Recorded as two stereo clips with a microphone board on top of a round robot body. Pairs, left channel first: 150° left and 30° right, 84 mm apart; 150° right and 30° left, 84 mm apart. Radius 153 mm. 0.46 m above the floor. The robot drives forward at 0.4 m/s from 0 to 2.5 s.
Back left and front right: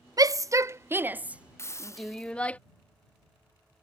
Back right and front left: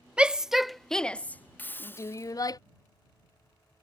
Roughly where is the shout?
Ahead right.